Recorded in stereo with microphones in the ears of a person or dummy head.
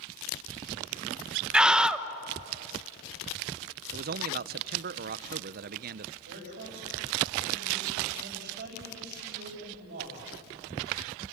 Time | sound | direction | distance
1.5 | a scream | 10° right (ahead or behind) | 1.1 m
3.9 | a man speaking | 45° right (ahead or behind) | 0.6 m
6.2 | a man speaking | 45° right (ahead or behind) | 6.5 m